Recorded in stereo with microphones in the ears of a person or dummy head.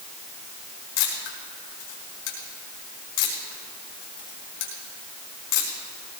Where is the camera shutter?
75° left (ahead or behind), 4.5 m.